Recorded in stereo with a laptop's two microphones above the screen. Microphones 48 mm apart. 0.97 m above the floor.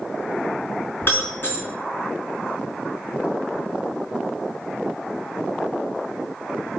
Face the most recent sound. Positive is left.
turn(degrees=45)  # may be behind; listen again after turning